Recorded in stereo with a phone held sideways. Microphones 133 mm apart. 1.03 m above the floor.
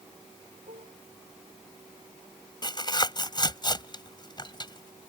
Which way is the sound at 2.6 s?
35° left (ahead or behind).